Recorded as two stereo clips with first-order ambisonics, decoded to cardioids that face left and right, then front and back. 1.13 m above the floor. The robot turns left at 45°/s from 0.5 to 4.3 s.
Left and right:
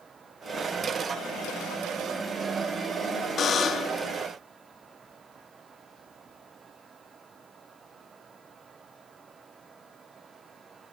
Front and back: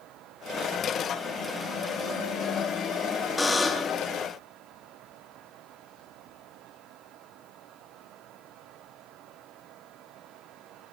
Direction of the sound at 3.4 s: 70° left.